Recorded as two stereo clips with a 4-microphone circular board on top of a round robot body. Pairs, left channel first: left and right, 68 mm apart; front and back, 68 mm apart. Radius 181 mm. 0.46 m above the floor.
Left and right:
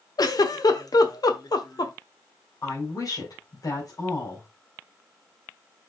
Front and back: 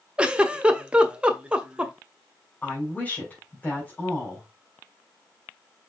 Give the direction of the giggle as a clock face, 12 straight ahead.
9 o'clock.